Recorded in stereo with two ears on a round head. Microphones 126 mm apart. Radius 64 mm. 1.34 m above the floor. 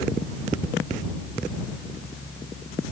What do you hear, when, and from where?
Only background noise.